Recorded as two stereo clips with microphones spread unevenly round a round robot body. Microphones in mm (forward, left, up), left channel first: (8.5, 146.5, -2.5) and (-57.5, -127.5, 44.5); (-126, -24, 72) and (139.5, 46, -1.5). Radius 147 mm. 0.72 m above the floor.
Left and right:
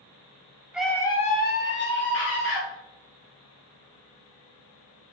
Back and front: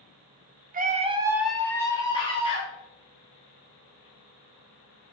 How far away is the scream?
About 0.6 m.